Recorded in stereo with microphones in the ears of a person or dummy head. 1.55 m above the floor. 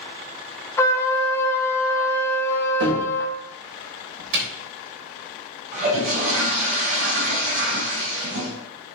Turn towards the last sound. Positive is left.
turn(degrees=-55)  # may be behind; listen again after turning